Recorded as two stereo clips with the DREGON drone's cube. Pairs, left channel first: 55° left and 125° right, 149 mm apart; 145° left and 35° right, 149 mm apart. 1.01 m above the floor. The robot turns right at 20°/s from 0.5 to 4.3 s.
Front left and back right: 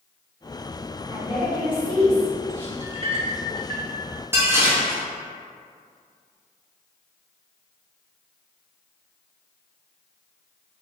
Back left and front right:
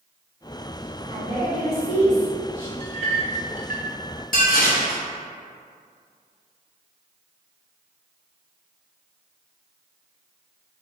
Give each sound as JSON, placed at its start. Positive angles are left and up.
{"t": 1.1, "sound": "a woman speaking", "azimuth_deg": 100, "distance_m": 1.9}
{"t": 2.8, "sound": "a clink", "azimuth_deg": -80, "distance_m": 0.7}
{"t": 4.3, "sound": "dishes clattering", "azimuth_deg": 165, "distance_m": 0.9}